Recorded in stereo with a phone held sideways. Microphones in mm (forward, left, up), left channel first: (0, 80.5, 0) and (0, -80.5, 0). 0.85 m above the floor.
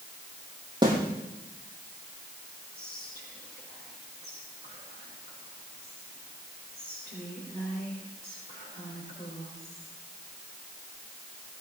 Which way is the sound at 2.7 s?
85° left.